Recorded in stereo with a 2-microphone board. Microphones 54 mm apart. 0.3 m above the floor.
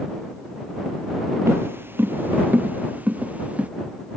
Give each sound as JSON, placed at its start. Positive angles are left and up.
{"t": 1.5, "sound": "footsteps", "side_deg": -50}